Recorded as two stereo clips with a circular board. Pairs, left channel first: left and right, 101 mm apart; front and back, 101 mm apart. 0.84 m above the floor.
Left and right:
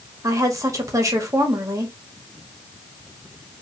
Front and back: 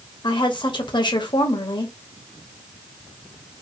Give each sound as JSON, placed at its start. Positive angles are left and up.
{"t": 0.2, "sound": "a woman speaking", "azimuth_deg": -35, "distance_m": 0.9}